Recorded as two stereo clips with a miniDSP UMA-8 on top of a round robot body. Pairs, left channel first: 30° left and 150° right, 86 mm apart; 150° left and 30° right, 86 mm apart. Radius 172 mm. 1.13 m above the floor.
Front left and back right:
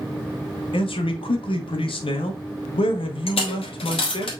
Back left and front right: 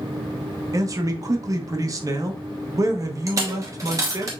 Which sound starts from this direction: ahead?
A man speaking, at 0.7 s.